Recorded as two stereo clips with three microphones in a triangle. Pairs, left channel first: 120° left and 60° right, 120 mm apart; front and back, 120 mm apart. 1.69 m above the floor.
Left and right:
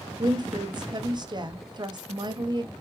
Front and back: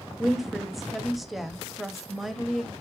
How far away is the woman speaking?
About 0.8 m.